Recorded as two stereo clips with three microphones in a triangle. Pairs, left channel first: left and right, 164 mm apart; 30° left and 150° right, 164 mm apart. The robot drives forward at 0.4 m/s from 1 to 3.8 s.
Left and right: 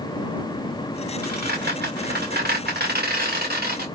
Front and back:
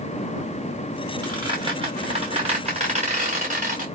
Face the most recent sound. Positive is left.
turn(degrees=-115)